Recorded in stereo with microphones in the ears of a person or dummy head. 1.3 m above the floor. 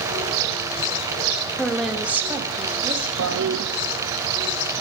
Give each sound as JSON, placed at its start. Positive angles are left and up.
{"t": 1.6, "sound": "a woman speaking", "side_deg": 10, "distance_m": 2.0}
{"t": 3.2, "sound": "a toilet flushing", "side_deg": -80, "distance_m": 1.0}